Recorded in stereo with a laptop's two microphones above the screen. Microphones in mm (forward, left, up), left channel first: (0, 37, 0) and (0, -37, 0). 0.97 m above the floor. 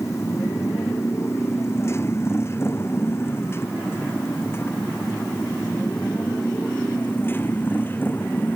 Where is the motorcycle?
40° left (ahead or behind); by 8.6 s 25° left (ahead or behind).